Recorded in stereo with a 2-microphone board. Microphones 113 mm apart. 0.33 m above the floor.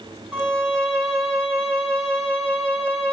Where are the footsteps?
No footsteps in this recording.